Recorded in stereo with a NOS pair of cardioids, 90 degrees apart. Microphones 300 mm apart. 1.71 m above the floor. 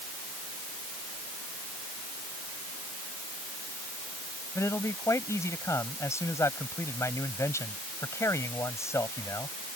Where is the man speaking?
10° left.